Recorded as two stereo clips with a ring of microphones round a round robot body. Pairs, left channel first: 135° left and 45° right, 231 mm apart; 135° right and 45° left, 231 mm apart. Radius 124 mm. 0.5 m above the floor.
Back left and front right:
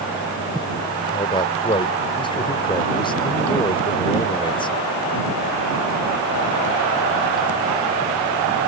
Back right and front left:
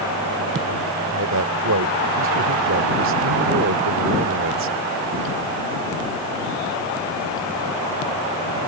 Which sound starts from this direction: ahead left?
A man speaking, at 1.0 s.